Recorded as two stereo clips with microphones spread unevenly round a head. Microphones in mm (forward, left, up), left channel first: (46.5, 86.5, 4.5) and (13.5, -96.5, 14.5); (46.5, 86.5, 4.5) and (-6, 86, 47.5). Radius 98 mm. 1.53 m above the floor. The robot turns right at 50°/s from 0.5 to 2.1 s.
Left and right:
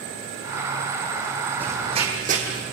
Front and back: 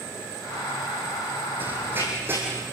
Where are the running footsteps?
Straight behind, 3.5 m; by 2.6 s 145° right, 4 m.